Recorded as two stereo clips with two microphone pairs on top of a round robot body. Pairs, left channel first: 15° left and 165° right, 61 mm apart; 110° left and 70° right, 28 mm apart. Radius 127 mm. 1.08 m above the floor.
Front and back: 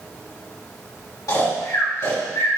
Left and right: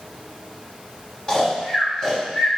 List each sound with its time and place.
1.3 s snoring: 45° left, 3.5 m